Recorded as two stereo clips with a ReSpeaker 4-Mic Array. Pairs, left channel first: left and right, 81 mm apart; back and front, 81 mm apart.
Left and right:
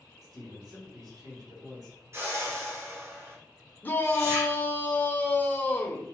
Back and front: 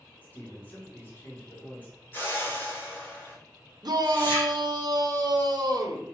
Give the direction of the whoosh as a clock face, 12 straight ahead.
4 o'clock.